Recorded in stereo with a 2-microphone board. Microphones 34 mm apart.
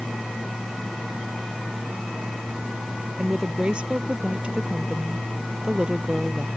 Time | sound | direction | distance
3.2 | a woman speaking | 30° right (ahead or behind) | ?